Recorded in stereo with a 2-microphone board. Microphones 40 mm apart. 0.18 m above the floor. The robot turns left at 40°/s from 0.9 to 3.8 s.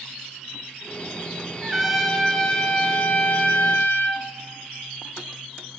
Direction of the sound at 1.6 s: 165° right.